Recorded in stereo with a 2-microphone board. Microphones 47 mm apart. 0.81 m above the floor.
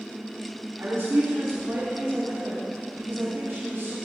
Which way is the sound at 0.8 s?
65° right (ahead or behind).